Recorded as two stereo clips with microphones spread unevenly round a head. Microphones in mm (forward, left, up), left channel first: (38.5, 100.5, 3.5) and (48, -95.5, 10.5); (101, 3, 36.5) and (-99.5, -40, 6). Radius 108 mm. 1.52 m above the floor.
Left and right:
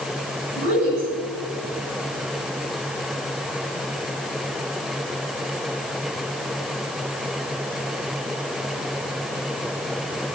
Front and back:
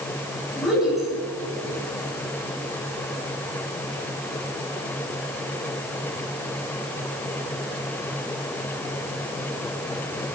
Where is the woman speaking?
75° right, 7 m.